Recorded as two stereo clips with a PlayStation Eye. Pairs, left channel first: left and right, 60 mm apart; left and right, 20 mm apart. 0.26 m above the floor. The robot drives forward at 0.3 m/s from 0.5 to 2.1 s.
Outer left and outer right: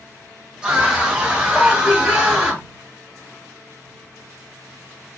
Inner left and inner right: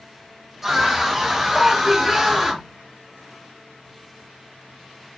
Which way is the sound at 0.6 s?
15° right (ahead or behind).